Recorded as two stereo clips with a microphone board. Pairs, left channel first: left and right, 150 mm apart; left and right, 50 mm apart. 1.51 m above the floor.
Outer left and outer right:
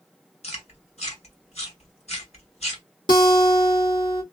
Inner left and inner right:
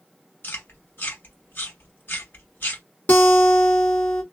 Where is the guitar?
35° left (ahead or behind), 1.0 m.